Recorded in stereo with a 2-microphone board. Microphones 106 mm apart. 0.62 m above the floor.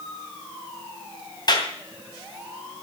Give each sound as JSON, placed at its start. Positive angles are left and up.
{"t": 1.5, "sound": "a clap", "side_deg": 40, "distance_m": 2.5}